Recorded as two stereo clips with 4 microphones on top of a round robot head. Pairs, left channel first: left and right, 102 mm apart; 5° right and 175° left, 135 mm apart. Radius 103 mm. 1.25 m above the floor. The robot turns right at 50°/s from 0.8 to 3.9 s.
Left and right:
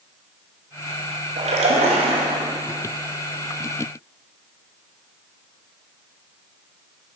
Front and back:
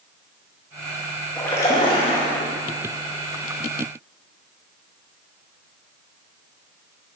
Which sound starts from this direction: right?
A splash, at 1.4 s.